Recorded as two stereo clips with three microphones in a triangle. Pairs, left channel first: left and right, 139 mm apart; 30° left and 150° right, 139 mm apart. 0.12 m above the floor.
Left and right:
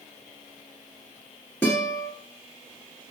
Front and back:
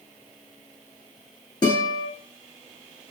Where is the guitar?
25° left, 1.4 m.